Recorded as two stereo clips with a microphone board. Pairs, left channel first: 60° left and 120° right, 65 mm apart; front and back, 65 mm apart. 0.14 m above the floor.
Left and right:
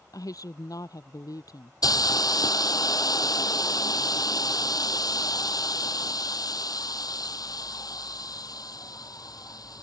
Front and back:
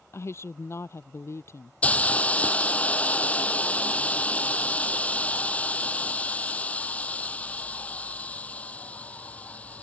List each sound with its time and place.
0.1 s a woman speaking: 45° left
1.8 s a hiss: 65° left